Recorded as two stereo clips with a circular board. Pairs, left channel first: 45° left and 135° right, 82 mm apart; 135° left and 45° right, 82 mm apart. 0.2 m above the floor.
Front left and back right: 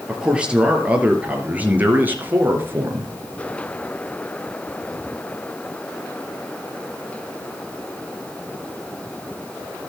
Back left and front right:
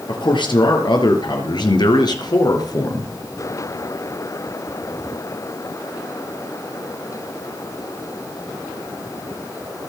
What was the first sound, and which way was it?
A man speaking, 145° left.